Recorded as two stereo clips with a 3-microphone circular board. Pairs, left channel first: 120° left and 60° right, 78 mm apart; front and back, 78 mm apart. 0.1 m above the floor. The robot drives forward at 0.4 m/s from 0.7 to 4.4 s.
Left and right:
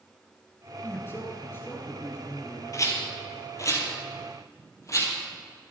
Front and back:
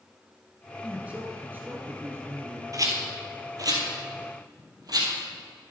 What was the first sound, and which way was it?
A man speaking, 125° left.